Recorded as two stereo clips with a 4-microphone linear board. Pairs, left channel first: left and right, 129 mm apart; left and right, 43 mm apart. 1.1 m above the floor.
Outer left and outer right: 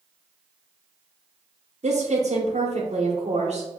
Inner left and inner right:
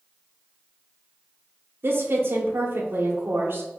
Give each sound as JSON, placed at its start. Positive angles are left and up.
{"t": 1.8, "sound": "a woman speaking", "side_deg": -60, "distance_m": 1.0}